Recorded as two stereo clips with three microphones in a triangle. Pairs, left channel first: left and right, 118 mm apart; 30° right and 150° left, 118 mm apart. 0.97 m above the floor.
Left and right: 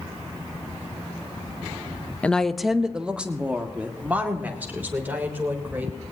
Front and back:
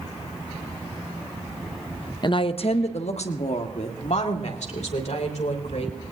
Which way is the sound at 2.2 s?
15° left.